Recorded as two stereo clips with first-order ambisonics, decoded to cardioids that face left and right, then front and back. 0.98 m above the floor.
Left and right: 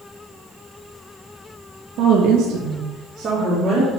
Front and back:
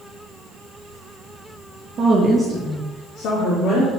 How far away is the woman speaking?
About 1.0 m.